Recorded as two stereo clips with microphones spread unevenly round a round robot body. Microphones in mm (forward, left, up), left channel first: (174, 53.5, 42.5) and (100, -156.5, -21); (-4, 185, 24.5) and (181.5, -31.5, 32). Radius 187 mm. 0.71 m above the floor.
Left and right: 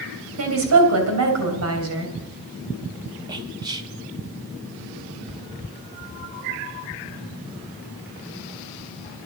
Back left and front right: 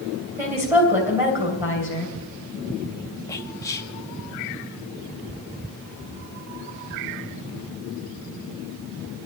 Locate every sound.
0.4 s a woman speaking: 135° right, 3 m
3.3 s whispering: 155° right, 0.6 m